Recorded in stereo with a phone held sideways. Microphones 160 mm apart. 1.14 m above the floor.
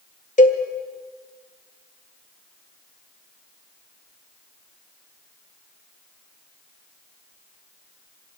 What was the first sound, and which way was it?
A cowbell, 50° left (ahead or behind).